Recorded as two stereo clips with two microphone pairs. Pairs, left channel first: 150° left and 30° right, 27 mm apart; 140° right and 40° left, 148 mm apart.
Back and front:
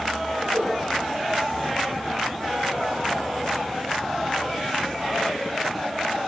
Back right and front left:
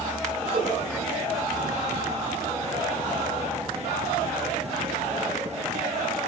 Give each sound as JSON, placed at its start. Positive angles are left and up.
{"t": 0.5, "sound": "a whoosh", "azimuth_deg": -10, "distance_m": 8.5}